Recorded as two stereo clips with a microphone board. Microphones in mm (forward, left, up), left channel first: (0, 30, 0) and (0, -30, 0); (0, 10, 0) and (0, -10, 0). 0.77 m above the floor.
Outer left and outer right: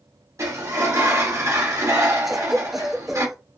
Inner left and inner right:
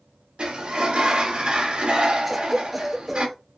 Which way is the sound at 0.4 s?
55° right (ahead or behind).